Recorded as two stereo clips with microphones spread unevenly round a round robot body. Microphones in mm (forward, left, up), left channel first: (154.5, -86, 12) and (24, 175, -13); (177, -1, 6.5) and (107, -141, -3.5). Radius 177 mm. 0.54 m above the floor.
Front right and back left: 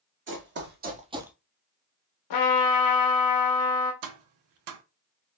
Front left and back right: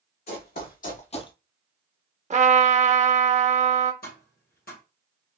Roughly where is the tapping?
Behind left.